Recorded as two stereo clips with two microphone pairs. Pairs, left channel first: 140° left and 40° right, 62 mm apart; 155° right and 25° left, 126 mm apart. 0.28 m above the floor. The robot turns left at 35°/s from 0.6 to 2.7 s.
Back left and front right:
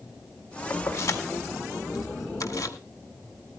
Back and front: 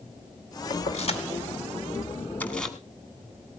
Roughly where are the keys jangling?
Behind.